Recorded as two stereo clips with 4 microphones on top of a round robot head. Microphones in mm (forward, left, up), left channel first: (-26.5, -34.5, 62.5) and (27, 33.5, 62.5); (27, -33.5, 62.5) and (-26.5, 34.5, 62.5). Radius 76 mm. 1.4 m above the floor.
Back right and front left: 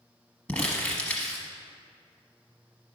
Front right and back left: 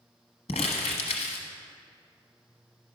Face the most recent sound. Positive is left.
turn(degrees=-60)